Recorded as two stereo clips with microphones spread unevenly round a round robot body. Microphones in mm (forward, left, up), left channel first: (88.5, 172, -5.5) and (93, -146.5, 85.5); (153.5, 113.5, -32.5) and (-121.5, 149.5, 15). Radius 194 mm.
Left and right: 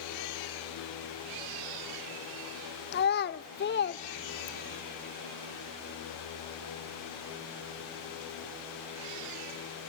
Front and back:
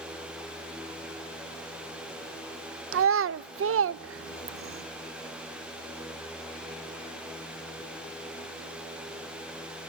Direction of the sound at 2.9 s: 125° left.